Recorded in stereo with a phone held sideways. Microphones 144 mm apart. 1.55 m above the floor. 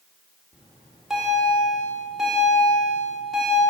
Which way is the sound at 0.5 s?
Centre (ahead or behind).